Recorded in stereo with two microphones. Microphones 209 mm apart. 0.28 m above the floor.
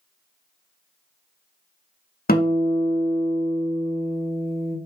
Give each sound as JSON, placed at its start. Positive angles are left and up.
{"t": 2.3, "sound": "a guitar", "side_deg": 45, "distance_m": 0.7}